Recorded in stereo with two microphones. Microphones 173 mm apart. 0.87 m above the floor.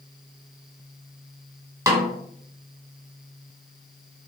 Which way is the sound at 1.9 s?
15° right (ahead or behind).